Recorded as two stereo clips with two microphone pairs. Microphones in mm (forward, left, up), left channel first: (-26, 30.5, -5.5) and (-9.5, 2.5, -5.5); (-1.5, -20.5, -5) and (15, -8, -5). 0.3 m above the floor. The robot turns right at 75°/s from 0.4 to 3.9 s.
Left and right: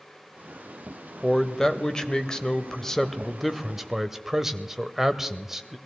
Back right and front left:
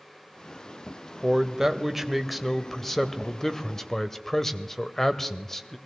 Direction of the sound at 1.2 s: 50° left.